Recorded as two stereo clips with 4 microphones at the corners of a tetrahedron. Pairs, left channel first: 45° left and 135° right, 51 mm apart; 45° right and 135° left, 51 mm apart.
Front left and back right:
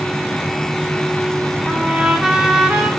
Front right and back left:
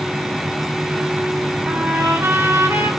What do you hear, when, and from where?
1.7 s a trumpet: 155° left, 1.6 m